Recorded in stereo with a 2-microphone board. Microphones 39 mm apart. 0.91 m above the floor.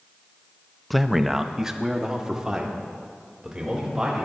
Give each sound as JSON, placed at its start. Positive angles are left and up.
{"t": 0.9, "sound": "a man speaking", "side_deg": 5, "distance_m": 0.6}